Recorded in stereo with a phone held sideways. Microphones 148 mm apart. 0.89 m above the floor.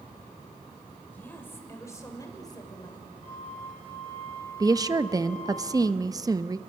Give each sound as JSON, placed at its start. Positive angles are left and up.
{"t": 1.1, "sound": "a woman speaking", "side_deg": 10, "distance_m": 4.0}
{"t": 3.2, "sound": "a flute", "side_deg": -35, "distance_m": 6.0}
{"t": 4.6, "sound": "a woman speaking", "side_deg": -25, "distance_m": 0.8}